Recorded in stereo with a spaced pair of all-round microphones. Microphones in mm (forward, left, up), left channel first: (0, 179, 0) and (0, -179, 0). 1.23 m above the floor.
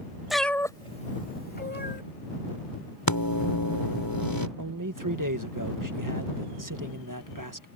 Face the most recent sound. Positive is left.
turn(degrees=-65)  # may be behind; listen again after turning